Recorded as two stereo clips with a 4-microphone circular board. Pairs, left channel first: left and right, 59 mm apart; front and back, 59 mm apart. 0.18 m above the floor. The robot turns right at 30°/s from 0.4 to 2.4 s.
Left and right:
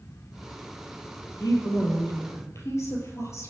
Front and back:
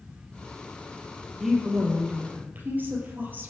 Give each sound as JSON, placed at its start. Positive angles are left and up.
{"t": 1.4, "sound": "a woman speaking", "azimuth_deg": 90, "distance_m": 4.0}